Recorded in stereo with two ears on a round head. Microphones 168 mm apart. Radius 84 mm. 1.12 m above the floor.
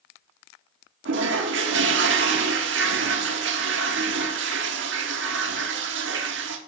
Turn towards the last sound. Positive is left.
turn(degrees=-65)  # may be behind; listen again after turning